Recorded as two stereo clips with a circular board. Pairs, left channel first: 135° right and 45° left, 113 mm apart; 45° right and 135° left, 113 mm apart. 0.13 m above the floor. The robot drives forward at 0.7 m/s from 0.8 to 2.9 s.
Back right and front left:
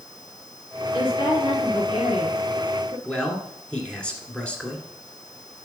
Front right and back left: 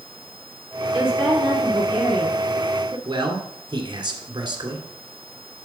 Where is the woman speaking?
140° right, 2.0 m; by 3.0 s 160° right, 3 m.